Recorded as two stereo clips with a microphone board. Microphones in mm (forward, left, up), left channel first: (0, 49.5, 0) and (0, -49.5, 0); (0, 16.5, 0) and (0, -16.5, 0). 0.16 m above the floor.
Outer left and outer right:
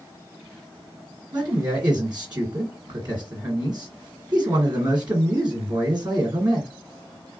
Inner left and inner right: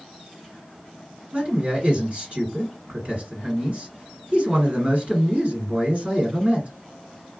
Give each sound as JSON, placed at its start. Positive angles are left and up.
{"t": 1.3, "sound": "a man speaking", "side_deg": -45, "distance_m": 1.7}